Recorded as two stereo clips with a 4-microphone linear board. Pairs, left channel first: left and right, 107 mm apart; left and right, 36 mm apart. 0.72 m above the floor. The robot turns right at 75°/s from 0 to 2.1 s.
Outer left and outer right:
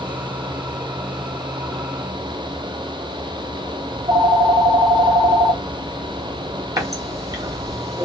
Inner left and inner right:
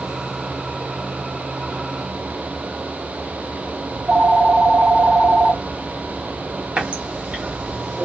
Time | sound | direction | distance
3.9 | a phone ringing | 45° right (ahead or behind) | 2 m
6.8 | a running tap | 30° right (ahead or behind) | 1.3 m